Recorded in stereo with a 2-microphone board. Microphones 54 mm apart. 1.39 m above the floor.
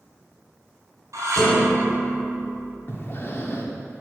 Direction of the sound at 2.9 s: 45° left (ahead or behind).